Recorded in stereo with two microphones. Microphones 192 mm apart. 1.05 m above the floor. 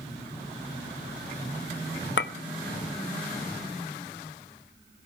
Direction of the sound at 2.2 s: 70° left (ahead or behind).